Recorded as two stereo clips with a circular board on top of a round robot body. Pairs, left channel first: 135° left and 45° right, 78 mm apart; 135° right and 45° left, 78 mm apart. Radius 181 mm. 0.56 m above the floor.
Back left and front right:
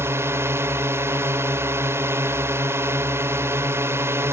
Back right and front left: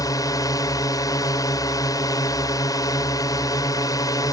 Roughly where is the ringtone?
No ringtone in this recording.